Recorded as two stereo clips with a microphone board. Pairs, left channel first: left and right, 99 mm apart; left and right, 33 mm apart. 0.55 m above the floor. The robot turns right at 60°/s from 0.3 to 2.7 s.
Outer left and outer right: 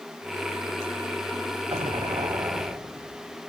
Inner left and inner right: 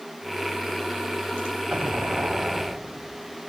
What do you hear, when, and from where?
1.7 s an explosion: 85° right, 1.4 m; by 3.4 s 25° right, 1.4 m